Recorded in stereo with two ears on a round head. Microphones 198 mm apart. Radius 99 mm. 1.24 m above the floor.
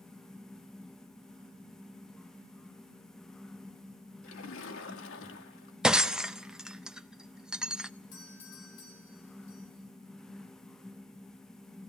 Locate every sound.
4.2 s a splash: 65° left (ahead or behind), 2 m
5.8 s breaking glass: 5° right (ahead or behind), 0.6 m
8.1 s a doorbell: 65° left (ahead or behind), 7 m